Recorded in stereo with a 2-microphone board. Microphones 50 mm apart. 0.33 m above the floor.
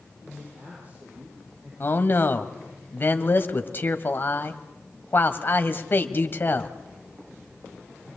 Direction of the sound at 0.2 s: 35° right (ahead or behind).